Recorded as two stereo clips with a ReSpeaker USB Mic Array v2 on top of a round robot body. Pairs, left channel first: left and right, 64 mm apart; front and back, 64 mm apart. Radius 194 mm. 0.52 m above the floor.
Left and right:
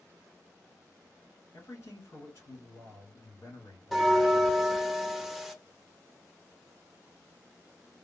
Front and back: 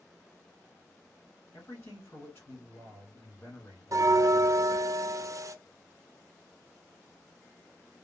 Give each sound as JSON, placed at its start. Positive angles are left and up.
{"t": 1.5, "sound": "a man speaking", "azimuth_deg": 50, "distance_m": 2.5}
{"t": 3.9, "sound": "a bell", "azimuth_deg": 180, "distance_m": 0.7}